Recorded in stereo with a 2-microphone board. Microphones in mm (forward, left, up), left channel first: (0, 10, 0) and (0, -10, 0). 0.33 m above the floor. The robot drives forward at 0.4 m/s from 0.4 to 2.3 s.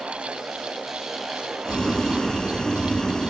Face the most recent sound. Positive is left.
turn(degrees=40)  # may be behind; listen again after turning